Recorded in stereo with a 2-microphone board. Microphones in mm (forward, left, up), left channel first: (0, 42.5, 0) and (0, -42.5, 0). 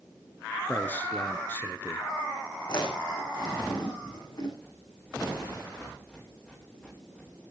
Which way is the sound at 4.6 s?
10° left (ahead or behind).